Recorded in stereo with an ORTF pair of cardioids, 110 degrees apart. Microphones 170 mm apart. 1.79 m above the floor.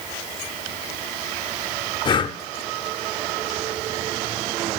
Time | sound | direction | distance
2.0 | breathing | 25° left | 0.6 m